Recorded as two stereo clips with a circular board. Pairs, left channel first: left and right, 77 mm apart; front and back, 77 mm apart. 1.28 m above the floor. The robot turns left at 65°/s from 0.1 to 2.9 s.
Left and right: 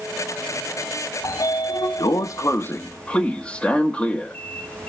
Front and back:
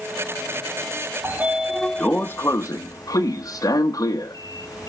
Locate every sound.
1.2 s a sliding door: 125° left, 0.8 m; by 4.9 s 15° left, 0.8 m